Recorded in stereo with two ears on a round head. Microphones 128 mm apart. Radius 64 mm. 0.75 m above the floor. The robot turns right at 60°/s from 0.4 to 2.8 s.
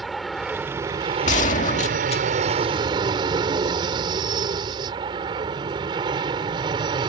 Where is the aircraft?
Straight behind; by 7.1 s 35° right.